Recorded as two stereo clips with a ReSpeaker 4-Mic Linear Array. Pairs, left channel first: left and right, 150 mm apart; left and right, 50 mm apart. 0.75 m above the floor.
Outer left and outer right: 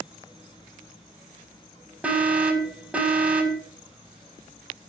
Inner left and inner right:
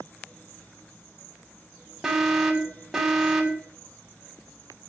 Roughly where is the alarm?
Centre.